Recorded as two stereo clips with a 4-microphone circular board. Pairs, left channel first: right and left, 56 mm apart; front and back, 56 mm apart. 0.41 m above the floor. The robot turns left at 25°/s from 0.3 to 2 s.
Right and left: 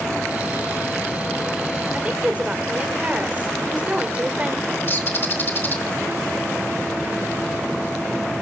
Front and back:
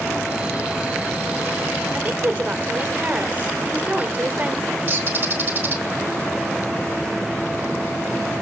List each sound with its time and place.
1.9 s a woman speaking: 140° left, 1.3 m
4.9 s a bird: 130° right, 1.2 m